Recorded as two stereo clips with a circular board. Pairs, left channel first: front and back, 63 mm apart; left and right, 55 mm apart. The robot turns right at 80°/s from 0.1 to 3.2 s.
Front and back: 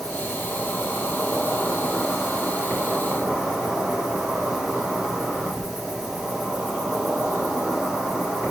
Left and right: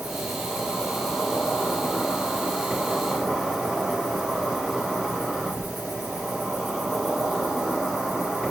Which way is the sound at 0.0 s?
70° right.